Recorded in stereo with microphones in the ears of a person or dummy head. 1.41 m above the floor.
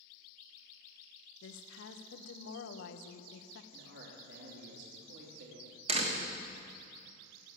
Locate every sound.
1.4 s a woman speaking: 75° left (ahead or behind), 1.1 m
3.7 s a man speaking: 65° right (ahead or behind), 3.5 m
5.9 s a door slam: 40° right (ahead or behind), 1.4 m